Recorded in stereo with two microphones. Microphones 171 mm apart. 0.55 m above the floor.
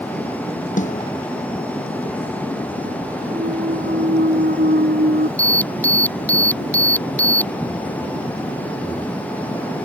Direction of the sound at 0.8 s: 45° left (ahead or behind).